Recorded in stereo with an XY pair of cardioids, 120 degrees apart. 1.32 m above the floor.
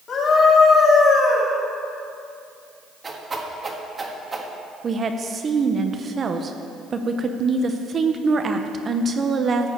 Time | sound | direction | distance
0.1 | a scream | 50° left | 4 m
3.0 | a whoosh | 25° right | 1.5 m
4.8 | a woman speaking | 35° right | 0.7 m